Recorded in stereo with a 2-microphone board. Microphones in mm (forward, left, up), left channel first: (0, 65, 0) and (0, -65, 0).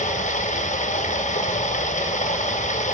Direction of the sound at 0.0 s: 70° left (ahead or behind).